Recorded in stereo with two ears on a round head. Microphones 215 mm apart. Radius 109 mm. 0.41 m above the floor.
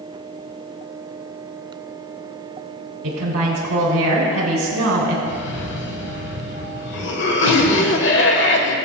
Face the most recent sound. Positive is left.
turn(degrees=50)  # may be behind; listen again after turning